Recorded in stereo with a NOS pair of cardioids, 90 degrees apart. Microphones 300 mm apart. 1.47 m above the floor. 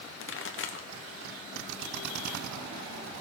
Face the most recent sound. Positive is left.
turn(degrees=40)